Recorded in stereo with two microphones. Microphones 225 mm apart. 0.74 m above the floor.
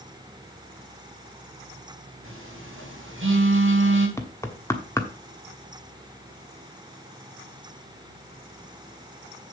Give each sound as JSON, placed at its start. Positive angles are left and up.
{"t": 2.2, "sound": "a phone buzzing", "side_deg": -75, "distance_m": 4.0}
{"t": 4.2, "sound": "knocking", "side_deg": 15, "distance_m": 1.2}